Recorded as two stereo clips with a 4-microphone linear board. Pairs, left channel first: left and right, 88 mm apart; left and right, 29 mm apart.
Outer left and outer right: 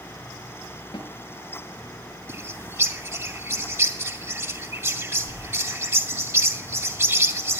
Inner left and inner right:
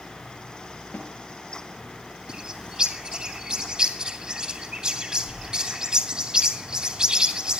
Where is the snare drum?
65° left (ahead or behind), 7.5 m.